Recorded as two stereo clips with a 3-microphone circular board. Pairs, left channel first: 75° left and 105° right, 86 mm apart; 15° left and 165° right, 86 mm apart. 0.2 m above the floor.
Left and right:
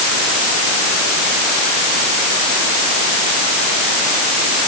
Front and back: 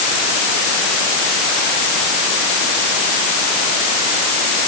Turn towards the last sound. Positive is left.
No sound to turn to.